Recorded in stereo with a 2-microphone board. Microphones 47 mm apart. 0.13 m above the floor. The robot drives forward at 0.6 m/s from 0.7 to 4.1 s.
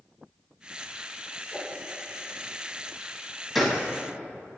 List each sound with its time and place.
1.5 s a whoosh: 15° left (ahead or behind), 5.5 m
3.5 s a gunshot: centre (ahead or behind), 2.5 m